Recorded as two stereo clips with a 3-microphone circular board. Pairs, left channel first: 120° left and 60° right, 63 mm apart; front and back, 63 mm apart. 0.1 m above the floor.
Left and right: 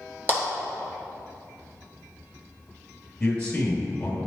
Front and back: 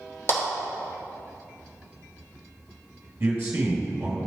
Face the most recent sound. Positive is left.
turn(degrees=-175)